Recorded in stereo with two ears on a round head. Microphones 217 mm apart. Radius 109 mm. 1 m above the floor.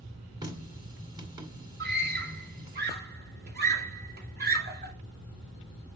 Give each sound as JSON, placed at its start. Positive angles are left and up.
{"t": 0.4, "sound": "a running tap", "side_deg": -20, "distance_m": 2.0}
{"t": 1.8, "sound": "a scream", "side_deg": -40, "distance_m": 2.5}